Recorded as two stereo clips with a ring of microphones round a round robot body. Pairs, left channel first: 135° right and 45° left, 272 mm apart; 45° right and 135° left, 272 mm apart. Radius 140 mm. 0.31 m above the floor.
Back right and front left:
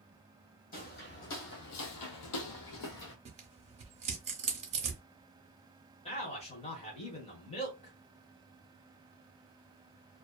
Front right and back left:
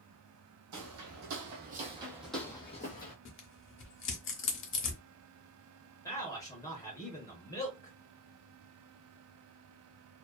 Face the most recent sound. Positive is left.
turn(degrees=-105)